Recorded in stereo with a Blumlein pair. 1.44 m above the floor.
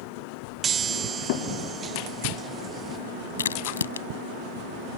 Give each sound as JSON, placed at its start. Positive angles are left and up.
{"t": 0.6, "sound": "a chime", "azimuth_deg": -25}
{"t": 3.4, "sound": "a crack", "azimuth_deg": 70}